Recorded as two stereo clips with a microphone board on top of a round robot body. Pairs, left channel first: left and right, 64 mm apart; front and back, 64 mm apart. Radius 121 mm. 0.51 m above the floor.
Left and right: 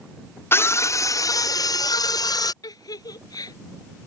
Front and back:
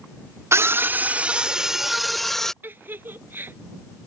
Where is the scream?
140° left; by 2.5 s 85° left.